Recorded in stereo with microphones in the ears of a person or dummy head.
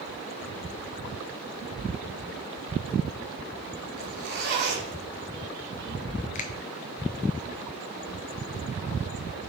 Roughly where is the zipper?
Right.